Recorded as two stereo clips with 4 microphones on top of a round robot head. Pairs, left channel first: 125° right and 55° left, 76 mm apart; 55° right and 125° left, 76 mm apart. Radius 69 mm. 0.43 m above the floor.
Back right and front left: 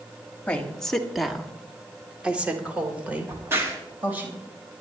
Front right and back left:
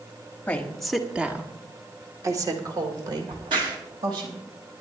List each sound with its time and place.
0.5 s a woman speaking: 80° right, 1.3 m; by 4.3 s 120° left, 3.5 m
3.3 s a crack: 115° left, 3 m